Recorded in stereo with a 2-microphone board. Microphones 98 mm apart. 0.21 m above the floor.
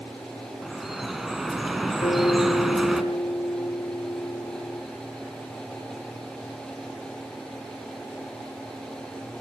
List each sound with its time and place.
0.6 s dripping: 5° right (ahead or behind), 2.5 m
2.0 s a guitar: 60° left (ahead or behind), 4.5 m